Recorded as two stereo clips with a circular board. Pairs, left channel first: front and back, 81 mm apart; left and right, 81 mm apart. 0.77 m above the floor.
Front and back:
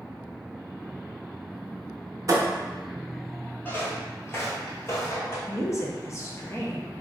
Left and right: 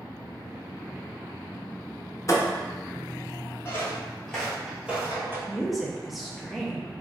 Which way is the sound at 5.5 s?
Straight ahead.